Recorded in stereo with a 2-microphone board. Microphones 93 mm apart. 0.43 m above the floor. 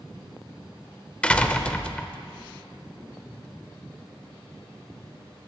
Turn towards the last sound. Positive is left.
turn(degrees=10)  # may be behind; listen again after turning